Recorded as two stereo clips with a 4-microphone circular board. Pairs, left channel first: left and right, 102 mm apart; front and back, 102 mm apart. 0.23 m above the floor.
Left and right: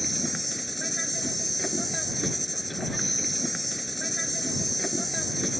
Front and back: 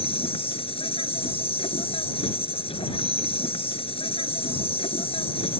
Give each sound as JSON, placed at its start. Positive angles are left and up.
{"t": 0.0, "sound": "an insect", "azimuth_deg": 0}